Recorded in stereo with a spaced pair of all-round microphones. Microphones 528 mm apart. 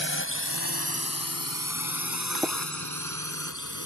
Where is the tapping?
Centre (ahead or behind).